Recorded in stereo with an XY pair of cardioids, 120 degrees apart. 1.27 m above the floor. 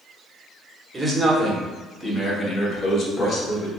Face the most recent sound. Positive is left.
turn(degrees=45)